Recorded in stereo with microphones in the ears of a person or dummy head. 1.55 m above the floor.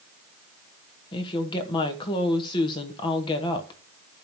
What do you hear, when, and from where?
1.1 s a woman speaking: 25° left (ahead or behind), 1.2 m